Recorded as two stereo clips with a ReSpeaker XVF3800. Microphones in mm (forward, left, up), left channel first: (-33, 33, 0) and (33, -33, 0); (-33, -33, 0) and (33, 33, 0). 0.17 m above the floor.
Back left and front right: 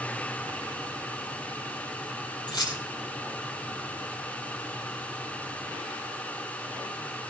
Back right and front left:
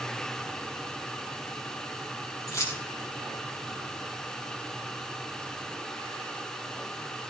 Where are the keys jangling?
170° left, 3.5 m.